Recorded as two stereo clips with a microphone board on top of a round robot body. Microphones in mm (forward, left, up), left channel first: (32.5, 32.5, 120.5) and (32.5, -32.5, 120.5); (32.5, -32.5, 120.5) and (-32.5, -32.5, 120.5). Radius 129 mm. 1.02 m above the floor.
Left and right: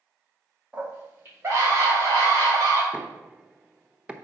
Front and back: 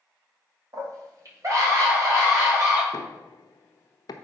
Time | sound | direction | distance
0.7 | a scream | 160° right | 2.5 m
2.9 | knocking | 15° right | 0.8 m